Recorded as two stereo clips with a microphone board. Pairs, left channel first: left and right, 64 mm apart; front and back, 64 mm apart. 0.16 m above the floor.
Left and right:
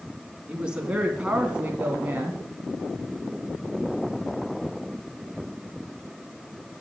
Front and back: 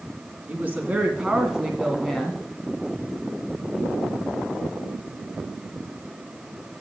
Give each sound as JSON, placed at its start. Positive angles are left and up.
{"t": 0.5, "sound": "a woman speaking", "azimuth_deg": -150, "distance_m": 1.8}